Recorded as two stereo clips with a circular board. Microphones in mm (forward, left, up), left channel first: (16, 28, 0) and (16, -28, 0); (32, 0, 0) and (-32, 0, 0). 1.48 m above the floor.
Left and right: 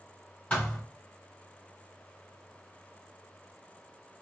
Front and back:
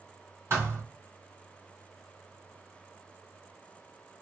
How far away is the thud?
About 1.9 m.